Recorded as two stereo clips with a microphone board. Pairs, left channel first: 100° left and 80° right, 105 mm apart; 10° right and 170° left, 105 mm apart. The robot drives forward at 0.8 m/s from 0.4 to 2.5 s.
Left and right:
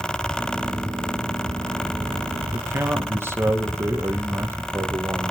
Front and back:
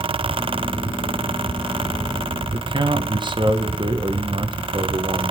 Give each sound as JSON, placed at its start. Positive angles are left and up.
{"t": 2.5, "sound": "a man speaking", "azimuth_deg": -145, "distance_m": 1.7}